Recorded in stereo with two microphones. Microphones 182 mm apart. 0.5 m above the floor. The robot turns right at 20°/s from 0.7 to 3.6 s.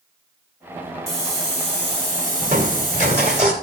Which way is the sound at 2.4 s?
50° right (ahead or behind).